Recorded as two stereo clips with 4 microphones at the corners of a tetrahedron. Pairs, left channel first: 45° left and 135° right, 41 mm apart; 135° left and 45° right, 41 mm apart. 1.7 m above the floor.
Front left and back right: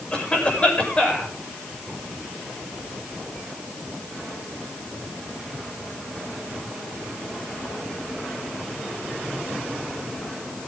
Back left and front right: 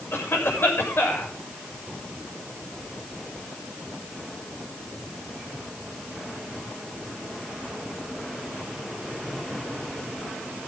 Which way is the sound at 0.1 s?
110° left.